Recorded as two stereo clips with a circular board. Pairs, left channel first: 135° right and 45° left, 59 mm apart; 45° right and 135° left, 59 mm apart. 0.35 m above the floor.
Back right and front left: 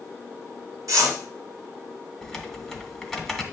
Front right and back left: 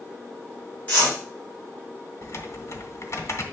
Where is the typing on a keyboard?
45° right, 1.4 m.